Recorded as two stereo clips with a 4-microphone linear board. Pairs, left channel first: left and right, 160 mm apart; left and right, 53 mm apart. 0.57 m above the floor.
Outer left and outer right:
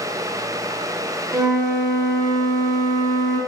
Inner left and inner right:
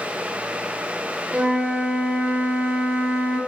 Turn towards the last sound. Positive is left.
turn(degrees=-25)  # may be behind; listen again after turning